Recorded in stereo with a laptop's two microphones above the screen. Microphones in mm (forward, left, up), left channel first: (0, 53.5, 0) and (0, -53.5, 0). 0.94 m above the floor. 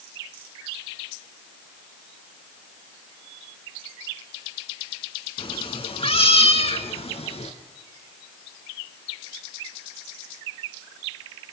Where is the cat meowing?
55° left (ahead or behind), 1.9 m; by 7.5 s 75° left (ahead or behind), 2.5 m.